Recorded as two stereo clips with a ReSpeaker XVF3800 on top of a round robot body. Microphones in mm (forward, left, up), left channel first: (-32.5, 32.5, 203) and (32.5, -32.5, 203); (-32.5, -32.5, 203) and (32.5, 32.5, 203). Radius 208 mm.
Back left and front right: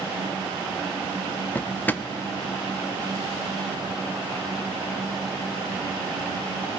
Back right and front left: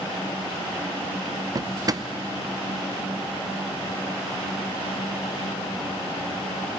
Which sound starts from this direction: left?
A drawer, at 1.6 s.